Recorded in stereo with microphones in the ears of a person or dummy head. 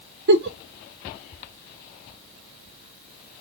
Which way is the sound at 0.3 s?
60° right (ahead or behind).